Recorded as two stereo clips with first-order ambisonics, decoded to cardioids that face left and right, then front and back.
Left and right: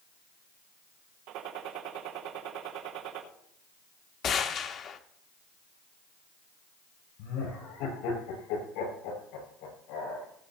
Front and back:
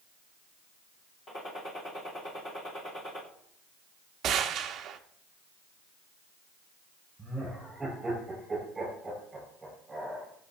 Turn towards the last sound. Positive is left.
turn(degrees=100)